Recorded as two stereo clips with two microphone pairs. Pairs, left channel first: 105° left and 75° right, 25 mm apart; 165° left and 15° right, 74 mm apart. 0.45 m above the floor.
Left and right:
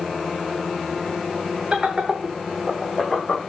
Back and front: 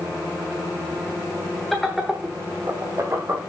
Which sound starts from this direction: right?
Laughter, at 1.7 s.